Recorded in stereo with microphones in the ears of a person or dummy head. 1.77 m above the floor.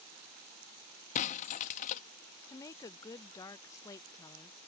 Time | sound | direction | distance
1.1 | breaking glass | 40° left (ahead or behind) | ?
2.5 | a woman speaking | 20° left (ahead or behind) | ?